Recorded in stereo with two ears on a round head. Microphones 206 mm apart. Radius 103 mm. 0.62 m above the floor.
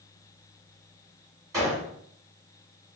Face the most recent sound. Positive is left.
turn(degrees=-15)  # may be behind; listen again after turning